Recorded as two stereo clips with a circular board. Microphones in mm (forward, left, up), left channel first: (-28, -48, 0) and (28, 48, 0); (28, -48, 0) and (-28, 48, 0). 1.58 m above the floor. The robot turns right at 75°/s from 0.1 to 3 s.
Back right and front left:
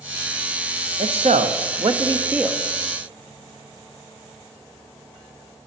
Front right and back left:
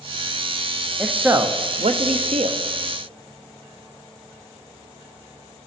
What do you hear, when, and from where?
1.0 s a man speaking: 30° left, 0.7 m; by 2.6 s 150° left, 0.7 m